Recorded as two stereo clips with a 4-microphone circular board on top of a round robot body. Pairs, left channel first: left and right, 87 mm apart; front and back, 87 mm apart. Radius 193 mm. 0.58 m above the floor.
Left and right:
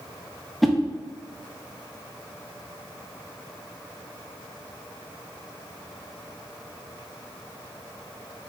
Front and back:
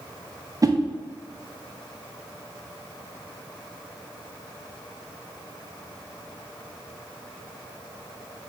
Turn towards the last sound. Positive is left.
turn(degrees=180)